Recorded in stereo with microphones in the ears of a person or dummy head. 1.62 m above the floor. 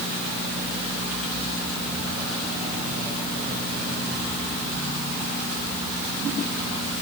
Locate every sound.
Only background noise.